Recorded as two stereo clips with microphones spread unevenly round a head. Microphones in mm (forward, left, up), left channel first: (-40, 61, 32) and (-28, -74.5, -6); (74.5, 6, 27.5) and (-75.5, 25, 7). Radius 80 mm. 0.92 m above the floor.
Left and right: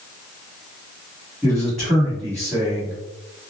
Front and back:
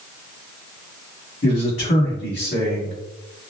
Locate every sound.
1.4 s a man speaking: straight ahead, 1.5 m